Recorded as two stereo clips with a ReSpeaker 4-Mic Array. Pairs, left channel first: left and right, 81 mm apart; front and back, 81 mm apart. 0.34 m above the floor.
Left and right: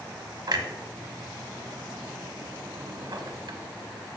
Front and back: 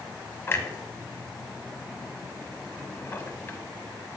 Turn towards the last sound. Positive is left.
turn(degrees=-60)